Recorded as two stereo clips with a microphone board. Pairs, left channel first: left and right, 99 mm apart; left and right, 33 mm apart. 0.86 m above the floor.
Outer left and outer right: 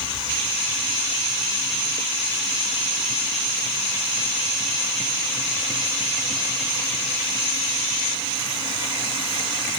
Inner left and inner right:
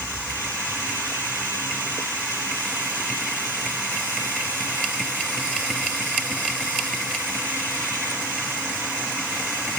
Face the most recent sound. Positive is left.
No sound to turn to.